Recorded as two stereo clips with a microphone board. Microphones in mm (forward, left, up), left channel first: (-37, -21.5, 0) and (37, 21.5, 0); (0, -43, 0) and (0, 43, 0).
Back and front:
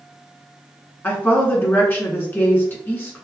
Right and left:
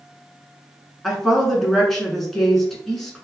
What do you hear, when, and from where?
1.0 s a woman speaking: 170° right, 1.1 m